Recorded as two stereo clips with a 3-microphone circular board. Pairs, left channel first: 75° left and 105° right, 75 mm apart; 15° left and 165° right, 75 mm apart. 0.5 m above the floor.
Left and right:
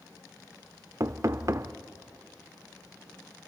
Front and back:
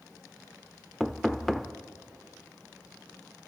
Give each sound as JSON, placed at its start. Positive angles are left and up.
{"t": 1.0, "sound": "knocking", "azimuth_deg": -70, "distance_m": 0.7}